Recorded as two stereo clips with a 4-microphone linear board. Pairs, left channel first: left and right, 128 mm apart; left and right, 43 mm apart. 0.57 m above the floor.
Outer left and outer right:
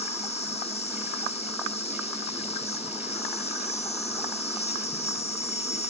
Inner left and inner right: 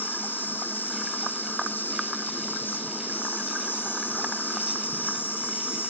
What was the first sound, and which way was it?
An insect, 60° left (ahead or behind).